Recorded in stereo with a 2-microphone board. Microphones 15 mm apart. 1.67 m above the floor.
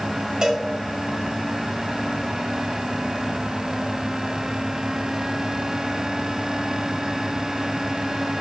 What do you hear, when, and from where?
0.4 s a cowbell: 60° right (ahead or behind), 6 m